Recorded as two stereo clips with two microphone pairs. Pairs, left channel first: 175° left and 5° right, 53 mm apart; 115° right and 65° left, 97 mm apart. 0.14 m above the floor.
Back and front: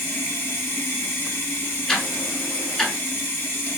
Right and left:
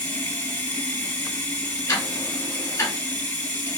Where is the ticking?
110° right, 1.2 m.